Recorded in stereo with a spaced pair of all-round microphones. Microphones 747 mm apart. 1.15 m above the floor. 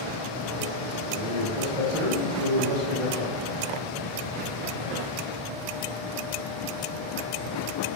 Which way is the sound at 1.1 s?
75° left (ahead or behind).